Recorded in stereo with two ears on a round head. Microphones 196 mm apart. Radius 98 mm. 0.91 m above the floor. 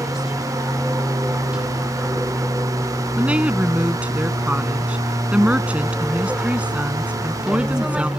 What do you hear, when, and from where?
0.0 s an aircraft: 5° right (ahead or behind)
3.2 s a woman speaking: 5° right (ahead or behind)